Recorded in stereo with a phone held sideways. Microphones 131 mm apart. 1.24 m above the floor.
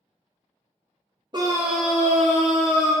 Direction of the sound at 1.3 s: 35° right (ahead or behind).